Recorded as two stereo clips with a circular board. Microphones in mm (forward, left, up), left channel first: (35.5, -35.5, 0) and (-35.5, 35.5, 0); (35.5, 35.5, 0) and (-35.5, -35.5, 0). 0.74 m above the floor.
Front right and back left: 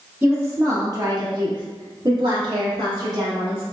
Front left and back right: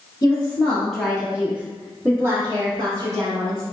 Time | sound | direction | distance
0.2 | a woman speaking | 70° left | 1.0 m